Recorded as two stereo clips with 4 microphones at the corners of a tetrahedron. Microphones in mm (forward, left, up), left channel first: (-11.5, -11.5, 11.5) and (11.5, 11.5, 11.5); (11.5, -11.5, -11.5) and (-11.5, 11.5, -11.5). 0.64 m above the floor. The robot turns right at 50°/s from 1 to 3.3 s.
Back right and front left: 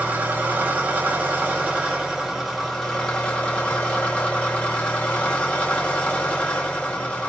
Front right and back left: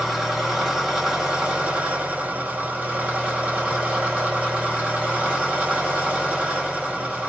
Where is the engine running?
60° left, 2 m; by 7.3 s 175° left, 2 m.